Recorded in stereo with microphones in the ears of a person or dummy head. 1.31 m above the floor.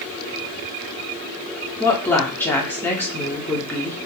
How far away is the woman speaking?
About 0.7 m.